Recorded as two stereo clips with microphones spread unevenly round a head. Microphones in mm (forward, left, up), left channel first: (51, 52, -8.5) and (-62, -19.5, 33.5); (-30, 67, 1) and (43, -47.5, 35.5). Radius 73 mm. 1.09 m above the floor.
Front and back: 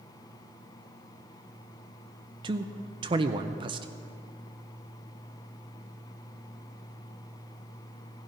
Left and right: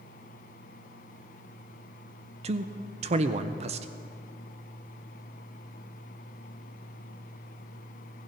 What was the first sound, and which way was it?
A man speaking, 90° right.